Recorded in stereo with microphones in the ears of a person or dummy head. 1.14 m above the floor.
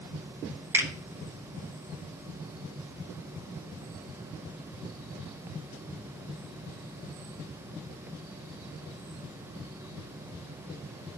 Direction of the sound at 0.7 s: 15° right (ahead or behind).